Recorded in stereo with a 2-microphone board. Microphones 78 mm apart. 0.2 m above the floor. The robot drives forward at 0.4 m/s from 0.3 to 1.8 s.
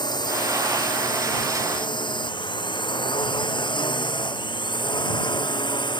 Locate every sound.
0.0 s a drone: 65° left (ahead or behind); by 6.0 s 75° left (ahead or behind)